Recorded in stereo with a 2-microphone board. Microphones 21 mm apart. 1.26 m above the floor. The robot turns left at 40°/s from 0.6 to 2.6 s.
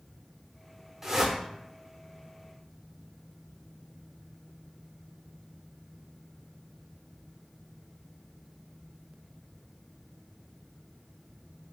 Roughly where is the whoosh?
Centre.